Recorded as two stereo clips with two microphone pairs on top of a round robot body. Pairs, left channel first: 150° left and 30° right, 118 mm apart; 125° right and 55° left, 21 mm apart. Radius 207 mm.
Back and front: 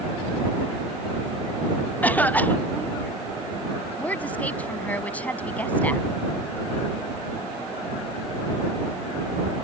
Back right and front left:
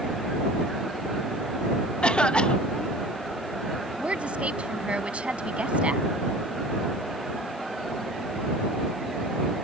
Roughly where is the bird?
I don't hear a bird.